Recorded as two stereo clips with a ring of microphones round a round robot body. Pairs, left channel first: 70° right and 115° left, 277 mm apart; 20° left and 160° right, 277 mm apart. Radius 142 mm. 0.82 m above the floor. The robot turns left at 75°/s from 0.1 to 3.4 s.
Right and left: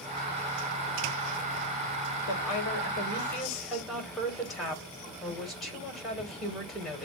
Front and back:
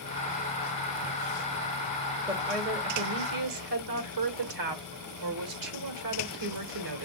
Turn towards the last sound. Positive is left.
turn(degrees=-155)